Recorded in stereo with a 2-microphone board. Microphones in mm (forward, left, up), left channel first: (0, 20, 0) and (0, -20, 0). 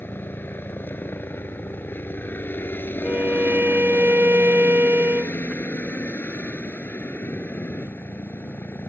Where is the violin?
70° right (ahead or behind).